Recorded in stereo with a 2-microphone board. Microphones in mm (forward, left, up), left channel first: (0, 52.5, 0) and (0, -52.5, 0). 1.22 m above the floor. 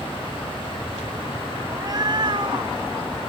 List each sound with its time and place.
1.7 s a cat meowing: 35° right (ahead or behind); by 3.3 s 55° right (ahead or behind)